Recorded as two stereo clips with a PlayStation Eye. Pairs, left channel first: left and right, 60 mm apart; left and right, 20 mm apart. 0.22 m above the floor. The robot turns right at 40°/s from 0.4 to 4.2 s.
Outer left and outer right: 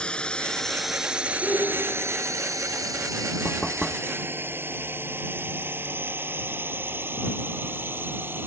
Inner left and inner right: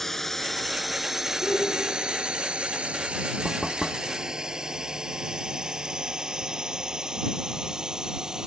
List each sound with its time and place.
0.0 s a drone: 20° left (ahead or behind); by 8.5 s 40° right (ahead or behind)
1.4 s a shout: 15° left; by 2.2 s 50° left
3.5 s knocking: 15° left (ahead or behind); by 4.1 s 5° right (ahead or behind)